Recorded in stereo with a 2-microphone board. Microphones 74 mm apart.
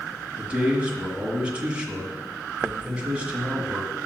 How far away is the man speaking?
About 1.9 m.